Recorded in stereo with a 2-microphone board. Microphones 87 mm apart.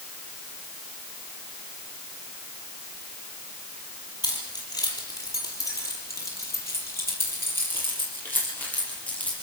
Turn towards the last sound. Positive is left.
turn(degrees=20)  # may be behind; listen again after turning